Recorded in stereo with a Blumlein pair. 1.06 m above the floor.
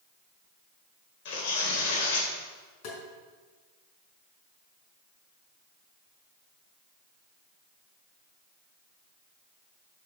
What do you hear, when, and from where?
1.2 s tearing paper: 50° left, 3 m
2.8 s tapping: 35° left, 4.5 m